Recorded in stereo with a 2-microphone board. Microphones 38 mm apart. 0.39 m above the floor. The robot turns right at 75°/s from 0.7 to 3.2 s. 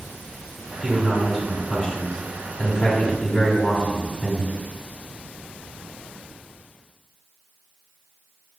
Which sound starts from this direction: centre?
A man speaking, at 0.8 s.